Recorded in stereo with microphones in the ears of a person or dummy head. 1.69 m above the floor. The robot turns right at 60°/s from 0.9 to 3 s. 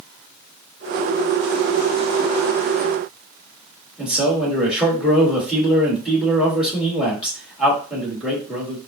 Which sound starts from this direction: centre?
A man speaking, at 4.0 s.